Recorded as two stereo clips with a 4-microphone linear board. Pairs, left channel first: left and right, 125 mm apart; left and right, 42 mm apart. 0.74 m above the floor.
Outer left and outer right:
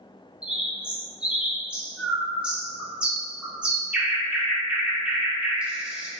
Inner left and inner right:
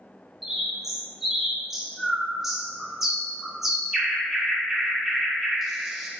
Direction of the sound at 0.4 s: 10° right (ahead or behind).